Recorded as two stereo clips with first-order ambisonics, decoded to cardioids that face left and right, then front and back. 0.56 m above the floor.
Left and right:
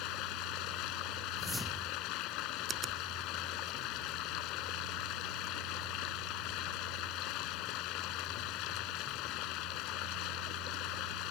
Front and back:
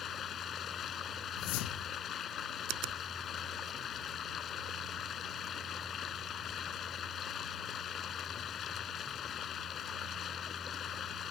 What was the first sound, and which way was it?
Running water, 60° left.